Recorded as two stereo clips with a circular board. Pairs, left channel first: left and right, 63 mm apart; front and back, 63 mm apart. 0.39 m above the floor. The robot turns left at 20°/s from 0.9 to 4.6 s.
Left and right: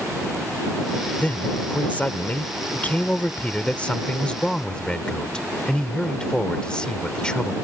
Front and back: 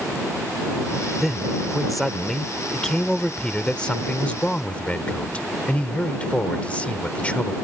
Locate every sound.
1.2 s a man speaking: 100° left; by 7.5 s 35° left